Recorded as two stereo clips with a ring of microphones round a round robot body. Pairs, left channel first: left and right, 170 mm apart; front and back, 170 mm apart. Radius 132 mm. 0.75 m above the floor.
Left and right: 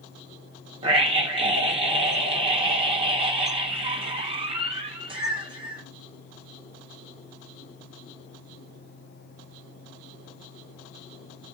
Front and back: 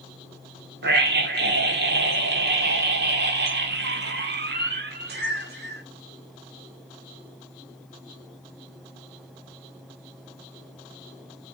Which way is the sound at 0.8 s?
155° right.